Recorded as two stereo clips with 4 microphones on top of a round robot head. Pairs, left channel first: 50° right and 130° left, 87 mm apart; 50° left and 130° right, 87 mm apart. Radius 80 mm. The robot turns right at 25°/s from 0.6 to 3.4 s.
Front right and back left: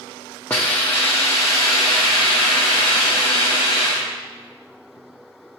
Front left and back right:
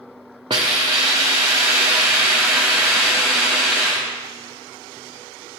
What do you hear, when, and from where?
0.5 s a hiss: 115° right, 0.6 m; by 4.1 s 45° right, 0.6 m